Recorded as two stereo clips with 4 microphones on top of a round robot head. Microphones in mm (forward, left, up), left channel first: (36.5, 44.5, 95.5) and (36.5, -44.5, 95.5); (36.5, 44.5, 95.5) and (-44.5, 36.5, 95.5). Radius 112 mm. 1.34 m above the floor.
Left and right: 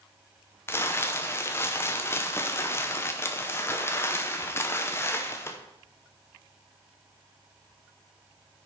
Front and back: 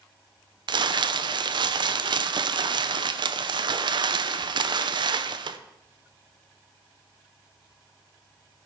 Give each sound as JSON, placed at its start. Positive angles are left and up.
{"t": 0.7, "sound": "crumpling", "azimuth_deg": 155, "distance_m": 0.7}